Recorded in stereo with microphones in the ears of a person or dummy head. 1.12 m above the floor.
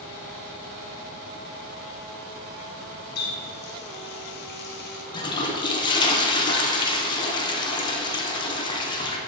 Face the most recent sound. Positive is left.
turn(degrees=20)  # may be behind; listen again after turning